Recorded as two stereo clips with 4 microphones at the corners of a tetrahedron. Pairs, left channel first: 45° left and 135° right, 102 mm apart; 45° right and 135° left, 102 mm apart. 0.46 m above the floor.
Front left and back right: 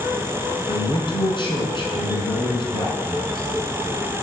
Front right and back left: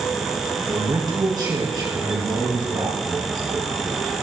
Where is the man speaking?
85° left, 5 m.